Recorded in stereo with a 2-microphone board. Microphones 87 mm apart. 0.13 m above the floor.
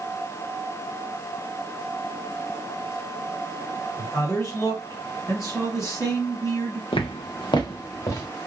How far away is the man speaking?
About 2.5 m.